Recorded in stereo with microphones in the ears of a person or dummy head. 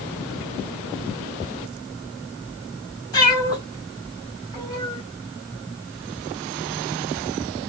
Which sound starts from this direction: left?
A cat meowing, at 3.1 s.